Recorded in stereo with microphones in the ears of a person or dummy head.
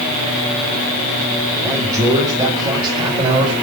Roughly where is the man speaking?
Centre.